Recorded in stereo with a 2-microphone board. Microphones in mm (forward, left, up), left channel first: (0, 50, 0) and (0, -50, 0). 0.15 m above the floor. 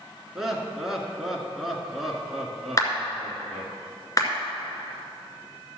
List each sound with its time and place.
0.3 s laughter: 5° right (ahead or behind), 1.8 m
2.8 s a clap: 35° left (ahead or behind), 1.9 m